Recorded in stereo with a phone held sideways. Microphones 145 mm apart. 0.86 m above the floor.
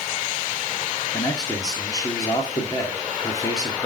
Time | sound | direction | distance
1.1 | a man speaking | 25° left (ahead or behind) | 2 m